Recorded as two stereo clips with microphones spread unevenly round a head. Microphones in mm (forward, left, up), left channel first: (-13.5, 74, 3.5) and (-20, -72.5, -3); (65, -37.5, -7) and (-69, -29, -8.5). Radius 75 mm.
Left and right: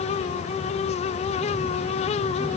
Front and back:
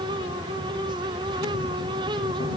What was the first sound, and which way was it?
Only background noise.